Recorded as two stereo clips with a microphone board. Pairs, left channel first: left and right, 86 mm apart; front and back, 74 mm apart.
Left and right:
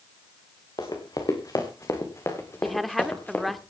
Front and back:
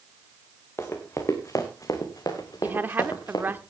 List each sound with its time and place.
0.8 s running footsteps: 55° left, 3 m; by 3.6 s 20° left, 3 m
2.6 s a woman speaking: 175° left, 0.9 m